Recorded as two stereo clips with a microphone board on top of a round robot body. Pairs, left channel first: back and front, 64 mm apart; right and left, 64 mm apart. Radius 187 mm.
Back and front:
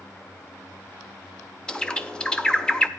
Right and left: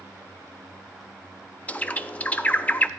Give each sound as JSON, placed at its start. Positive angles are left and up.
{"t": 1.7, "sound": "a bird", "azimuth_deg": -120, "distance_m": 0.8}